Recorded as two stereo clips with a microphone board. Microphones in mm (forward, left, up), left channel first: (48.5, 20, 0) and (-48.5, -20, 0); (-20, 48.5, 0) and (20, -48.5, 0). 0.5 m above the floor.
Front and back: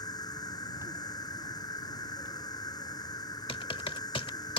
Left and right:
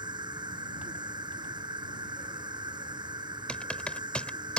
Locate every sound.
0.0 s an insect: 25° right
3.5 s typing on a keyboard: 35° left